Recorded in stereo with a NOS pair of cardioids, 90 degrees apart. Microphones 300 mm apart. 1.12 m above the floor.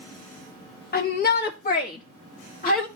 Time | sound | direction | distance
0.9 | a shout | 35° left | 1.1 m